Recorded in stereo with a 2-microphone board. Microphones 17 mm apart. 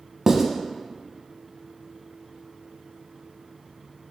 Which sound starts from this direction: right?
Writing, at 0.3 s.